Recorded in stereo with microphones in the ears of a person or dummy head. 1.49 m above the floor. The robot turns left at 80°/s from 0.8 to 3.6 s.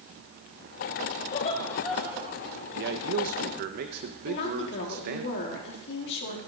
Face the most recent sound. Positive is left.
turn(degrees=60)  # may be behind; listen again after turning